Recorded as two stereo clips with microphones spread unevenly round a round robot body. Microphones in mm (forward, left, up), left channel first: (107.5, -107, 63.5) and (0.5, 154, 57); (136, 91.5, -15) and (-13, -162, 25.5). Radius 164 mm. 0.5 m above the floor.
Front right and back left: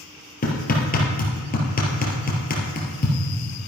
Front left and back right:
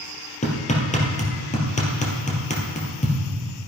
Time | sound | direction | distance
0.4 | hammering | 10° right | 3 m